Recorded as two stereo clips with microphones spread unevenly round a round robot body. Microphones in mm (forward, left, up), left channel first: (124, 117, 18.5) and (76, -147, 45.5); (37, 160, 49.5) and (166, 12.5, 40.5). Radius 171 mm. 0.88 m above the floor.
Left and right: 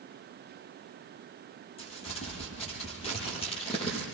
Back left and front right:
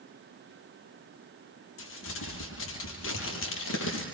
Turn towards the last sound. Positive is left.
turn(degrees=155)